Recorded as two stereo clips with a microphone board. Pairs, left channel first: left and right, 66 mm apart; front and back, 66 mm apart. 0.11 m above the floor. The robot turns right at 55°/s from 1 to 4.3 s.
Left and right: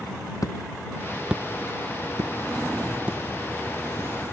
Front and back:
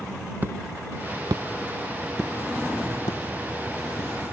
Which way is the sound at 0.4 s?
120° left.